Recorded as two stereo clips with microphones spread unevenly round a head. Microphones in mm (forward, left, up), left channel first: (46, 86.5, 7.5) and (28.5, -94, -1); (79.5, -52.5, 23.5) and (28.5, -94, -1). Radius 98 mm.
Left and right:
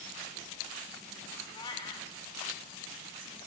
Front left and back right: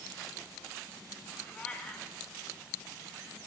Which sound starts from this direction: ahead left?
A cat meowing, at 1.5 s.